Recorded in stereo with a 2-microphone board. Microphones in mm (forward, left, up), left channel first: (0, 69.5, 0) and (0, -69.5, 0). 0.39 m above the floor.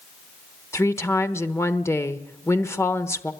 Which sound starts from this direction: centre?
A woman speaking, at 0.7 s.